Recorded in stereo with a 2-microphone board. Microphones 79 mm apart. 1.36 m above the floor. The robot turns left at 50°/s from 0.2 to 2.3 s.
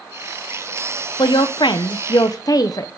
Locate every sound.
1.2 s a woman speaking: 110° left, 0.6 m; by 2.9 s 55° left, 0.6 m